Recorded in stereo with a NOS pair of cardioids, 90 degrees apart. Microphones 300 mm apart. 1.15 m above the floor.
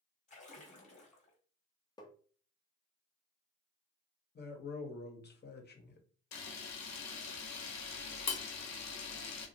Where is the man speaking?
35° left, 0.9 m.